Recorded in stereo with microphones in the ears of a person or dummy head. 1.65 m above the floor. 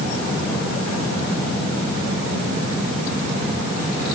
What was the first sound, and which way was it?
Only background noise.